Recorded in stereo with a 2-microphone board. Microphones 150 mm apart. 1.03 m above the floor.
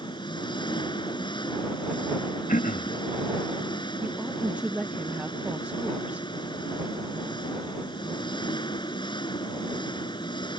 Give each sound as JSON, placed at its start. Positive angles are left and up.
{"t": 0.0, "sound": "an engine running", "side_deg": 30}
{"t": 2.5, "sound": "throat clearing", "side_deg": 60}
{"t": 4.0, "sound": "a woman speaking", "side_deg": -10}